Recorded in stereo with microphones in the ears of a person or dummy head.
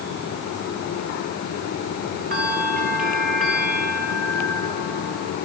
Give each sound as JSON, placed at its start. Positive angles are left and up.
{"t": 2.3, "sound": "a bell", "side_deg": -45, "distance_m": 2.0}